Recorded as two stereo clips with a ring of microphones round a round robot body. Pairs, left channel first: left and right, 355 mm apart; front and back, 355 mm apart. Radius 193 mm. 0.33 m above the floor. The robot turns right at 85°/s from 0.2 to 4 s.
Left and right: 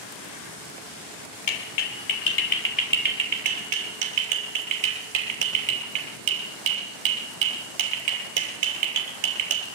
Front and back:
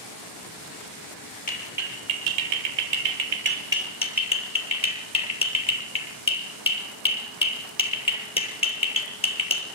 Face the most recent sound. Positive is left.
turn(degrees=-75)